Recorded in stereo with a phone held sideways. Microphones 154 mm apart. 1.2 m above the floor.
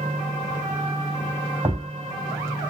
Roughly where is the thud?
Centre.